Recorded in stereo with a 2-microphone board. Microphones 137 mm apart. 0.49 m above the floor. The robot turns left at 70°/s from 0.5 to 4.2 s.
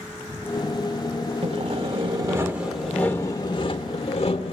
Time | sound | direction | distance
1.4 | sawing | 85° right | 1.4 m